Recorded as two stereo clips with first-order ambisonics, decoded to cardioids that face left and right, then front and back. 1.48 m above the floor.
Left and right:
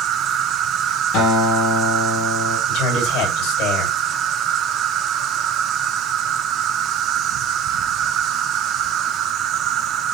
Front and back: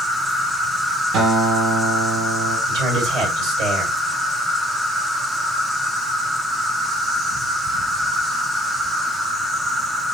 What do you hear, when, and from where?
0.0 s an insect: 100° right, 1.0 m
1.1 s a guitar: 135° left, 6 m
2.7 s a man speaking: 130° left, 6 m